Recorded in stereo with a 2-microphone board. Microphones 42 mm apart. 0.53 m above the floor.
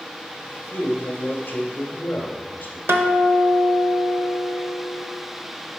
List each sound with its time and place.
0.7 s a man speaking: 55° left (ahead or behind), 1.5 m
2.9 s a guitar: 75° right (ahead or behind), 0.8 m